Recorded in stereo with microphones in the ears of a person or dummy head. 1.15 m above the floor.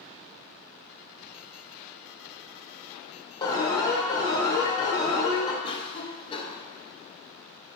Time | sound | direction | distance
3.4 | an alarm | 15° left (ahead or behind) | 1.3 m
5.6 | a cough | 30° left (ahead or behind) | 1.1 m